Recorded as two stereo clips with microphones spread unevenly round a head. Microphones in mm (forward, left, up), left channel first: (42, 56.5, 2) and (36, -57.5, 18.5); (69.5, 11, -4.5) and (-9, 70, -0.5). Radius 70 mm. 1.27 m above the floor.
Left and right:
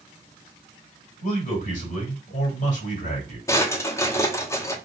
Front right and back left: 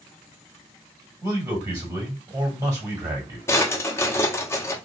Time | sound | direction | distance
1.2 | a man speaking | 85° left | 2.5 m
3.5 | a drawer | 20° left | 0.9 m